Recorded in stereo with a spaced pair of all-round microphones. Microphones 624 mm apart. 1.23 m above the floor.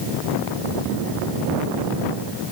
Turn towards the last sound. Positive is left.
No sound to turn to.